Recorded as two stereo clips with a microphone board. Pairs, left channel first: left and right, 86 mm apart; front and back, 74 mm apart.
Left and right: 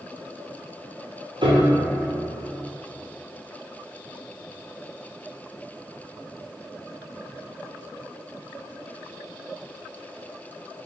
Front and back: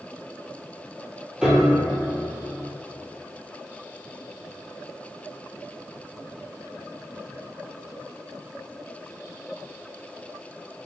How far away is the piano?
About 0.9 m.